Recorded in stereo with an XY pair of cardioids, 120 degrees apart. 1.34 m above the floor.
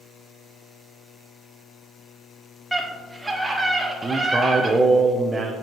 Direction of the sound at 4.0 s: 20° right.